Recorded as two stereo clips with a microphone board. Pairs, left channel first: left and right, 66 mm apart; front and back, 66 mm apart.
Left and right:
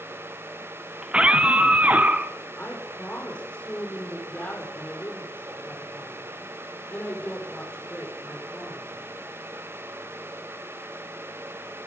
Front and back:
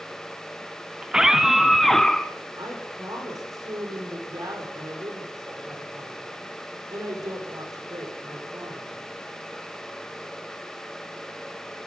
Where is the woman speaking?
160° left, 8 m.